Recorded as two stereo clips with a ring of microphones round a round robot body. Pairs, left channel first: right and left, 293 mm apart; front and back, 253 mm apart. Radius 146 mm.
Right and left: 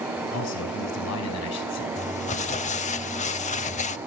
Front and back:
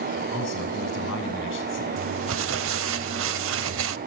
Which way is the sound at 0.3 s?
55° right.